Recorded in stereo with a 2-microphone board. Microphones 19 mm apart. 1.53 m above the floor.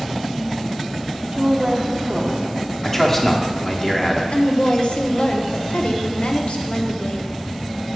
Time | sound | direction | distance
1.3 | a woman speaking | 45° right (ahead or behind) | 1.2 m
2.8 | a man speaking | 15° left (ahead or behind) | 1.0 m
4.3 | a woman speaking | 70° left (ahead or behind) | 0.8 m